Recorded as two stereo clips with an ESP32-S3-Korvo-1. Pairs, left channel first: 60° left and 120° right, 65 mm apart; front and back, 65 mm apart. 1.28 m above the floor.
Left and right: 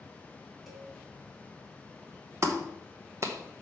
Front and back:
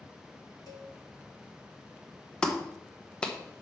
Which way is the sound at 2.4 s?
75° right.